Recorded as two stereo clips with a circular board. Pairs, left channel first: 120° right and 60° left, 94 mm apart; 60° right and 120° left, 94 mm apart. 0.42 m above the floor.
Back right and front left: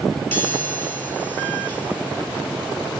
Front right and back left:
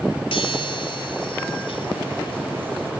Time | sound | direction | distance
0.3 | a chime | 55° right | 2 m